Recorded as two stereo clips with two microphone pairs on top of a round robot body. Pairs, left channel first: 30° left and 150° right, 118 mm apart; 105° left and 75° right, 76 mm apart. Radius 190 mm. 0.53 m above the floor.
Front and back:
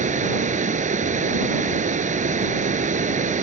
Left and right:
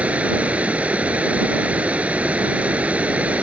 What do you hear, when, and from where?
0.0 s running water: 145° right